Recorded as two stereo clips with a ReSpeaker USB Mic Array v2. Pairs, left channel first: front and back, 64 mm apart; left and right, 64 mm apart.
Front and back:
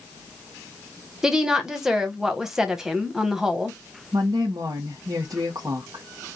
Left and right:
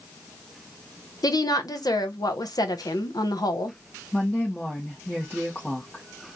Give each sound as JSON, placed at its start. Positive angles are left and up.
{"t": 1.2, "sound": "a woman speaking", "azimuth_deg": 100, "distance_m": 1.0}
{"t": 4.1, "sound": "a woman speaking", "azimuth_deg": 170, "distance_m": 1.4}